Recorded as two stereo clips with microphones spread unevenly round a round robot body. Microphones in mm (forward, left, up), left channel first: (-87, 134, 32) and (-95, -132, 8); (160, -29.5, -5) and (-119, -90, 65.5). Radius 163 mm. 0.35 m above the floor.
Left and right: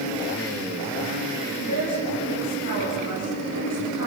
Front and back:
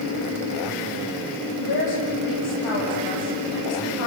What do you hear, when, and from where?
1.6 s a woman speaking: 30° left, 9.5 m